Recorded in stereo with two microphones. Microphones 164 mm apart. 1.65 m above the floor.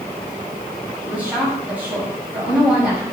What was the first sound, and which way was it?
A woman speaking, 10° right (ahead or behind).